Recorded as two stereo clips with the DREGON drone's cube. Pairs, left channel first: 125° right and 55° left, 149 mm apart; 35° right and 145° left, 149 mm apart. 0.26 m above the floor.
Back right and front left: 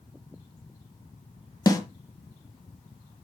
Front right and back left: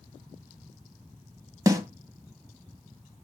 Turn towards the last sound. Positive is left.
turn(degrees=-165)